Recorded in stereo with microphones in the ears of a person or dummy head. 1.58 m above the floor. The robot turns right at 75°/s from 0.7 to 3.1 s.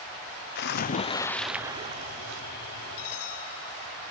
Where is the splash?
125° left; by 2.4 s 105° right.